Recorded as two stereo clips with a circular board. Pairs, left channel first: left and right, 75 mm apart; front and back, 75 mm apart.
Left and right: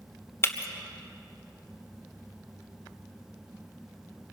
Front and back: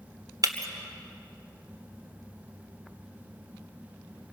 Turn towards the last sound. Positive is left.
turn(degrees=145)